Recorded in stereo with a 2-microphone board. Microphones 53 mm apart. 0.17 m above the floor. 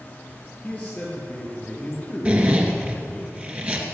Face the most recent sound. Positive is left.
turn(degrees=-25)  # may be behind; listen again after turning